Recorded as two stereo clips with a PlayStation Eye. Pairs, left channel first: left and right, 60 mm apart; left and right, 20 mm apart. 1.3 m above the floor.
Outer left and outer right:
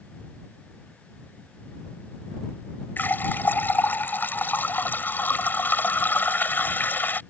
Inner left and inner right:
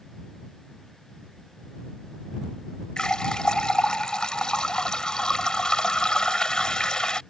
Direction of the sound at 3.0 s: 35° left (ahead or behind).